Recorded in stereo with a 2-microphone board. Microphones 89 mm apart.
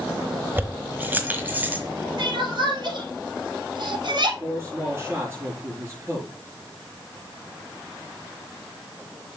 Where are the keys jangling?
25° right (ahead or behind), 1.0 m; by 1.8 s 20° right (ahead or behind), 1.6 m.